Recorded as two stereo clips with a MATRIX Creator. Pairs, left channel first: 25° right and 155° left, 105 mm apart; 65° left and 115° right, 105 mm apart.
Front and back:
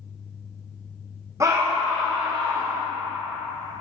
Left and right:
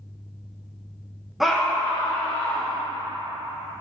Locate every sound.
1.4 s a scream: 165° left, 0.6 m; by 2.8 s 120° left, 1.3 m